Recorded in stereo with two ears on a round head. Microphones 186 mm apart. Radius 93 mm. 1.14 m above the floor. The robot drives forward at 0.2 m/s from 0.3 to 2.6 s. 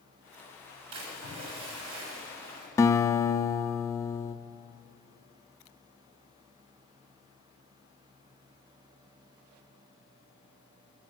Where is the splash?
90° right, 6 m; by 2.7 s 85° right, 6 m.